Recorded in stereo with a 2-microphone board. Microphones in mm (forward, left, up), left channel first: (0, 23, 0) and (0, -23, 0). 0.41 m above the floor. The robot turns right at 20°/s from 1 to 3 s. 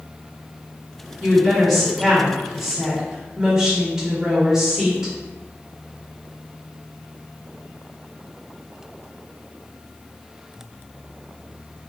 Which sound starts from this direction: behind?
A woman speaking, at 1.2 s.